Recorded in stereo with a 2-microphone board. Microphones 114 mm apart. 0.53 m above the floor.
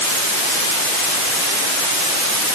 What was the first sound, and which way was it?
Only background noise.